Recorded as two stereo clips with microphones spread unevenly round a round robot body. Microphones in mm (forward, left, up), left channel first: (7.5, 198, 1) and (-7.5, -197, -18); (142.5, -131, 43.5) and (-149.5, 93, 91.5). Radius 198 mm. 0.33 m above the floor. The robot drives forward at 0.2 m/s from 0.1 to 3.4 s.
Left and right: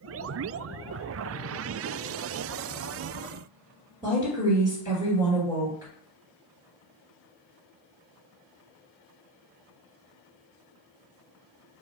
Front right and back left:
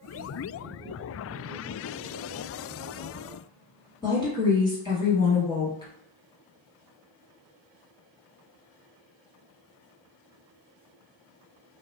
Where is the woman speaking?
45° right, 1.3 m.